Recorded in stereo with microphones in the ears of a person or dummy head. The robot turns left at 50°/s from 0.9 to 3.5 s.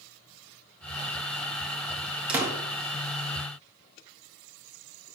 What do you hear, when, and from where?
2.3 s a door slam: 15° right (ahead or behind), 1.5 m; by 2.5 s 25° right (ahead or behind), 1.5 m